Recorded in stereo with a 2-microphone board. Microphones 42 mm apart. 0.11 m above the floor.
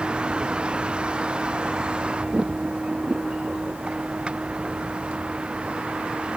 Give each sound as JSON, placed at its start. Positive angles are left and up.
{"t": 0.0, "sound": "a vehicle", "side_deg": -25}